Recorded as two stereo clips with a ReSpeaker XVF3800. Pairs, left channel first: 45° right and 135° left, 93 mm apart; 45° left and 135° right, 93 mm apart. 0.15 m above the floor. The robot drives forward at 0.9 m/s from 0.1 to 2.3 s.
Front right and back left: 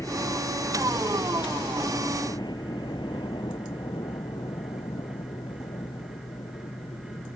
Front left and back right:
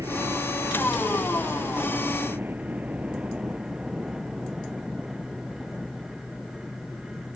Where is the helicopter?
90° right; by 7.4 s 35° right.